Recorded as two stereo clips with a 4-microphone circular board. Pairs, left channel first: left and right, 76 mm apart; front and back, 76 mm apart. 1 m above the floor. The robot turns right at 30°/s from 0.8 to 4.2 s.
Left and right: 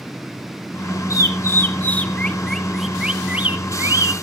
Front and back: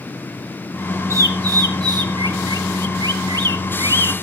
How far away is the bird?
About 1.2 m.